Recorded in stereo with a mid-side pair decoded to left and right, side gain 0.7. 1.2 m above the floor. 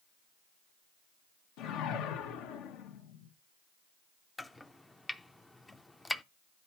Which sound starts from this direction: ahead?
Chopping, at 4.4 s.